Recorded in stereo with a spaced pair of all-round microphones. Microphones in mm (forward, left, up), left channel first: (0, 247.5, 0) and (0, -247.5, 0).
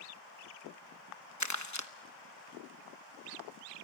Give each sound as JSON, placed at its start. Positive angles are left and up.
{"t": 1.4, "sound": "crumpling", "side_deg": 35, "distance_m": 1.1}